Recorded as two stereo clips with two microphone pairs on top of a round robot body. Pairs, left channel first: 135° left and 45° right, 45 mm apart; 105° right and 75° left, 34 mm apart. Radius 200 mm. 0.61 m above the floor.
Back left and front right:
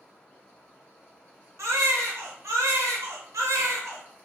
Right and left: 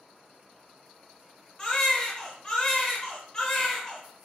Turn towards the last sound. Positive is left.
turn(degrees=-40)